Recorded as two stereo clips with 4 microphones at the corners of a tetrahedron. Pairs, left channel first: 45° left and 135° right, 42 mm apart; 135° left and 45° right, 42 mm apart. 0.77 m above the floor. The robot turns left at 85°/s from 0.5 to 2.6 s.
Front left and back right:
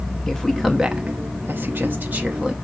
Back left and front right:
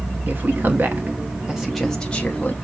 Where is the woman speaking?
30° right, 0.9 m; by 2.5 s 160° left, 0.9 m.